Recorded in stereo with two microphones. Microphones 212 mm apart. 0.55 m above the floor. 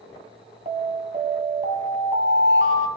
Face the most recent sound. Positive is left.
turn(degrees=-35)  # may be behind; listen again after turning